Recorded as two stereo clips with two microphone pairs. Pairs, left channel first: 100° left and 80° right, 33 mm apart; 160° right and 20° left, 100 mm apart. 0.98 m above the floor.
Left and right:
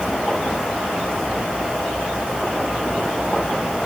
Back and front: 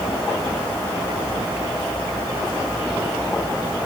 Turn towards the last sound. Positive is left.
No sound to turn to.